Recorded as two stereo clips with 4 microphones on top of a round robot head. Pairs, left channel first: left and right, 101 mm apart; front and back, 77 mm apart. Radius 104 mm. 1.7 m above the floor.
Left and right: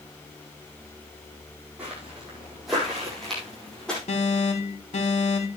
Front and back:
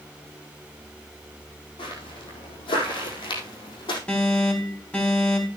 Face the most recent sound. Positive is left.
turn(degrees=70)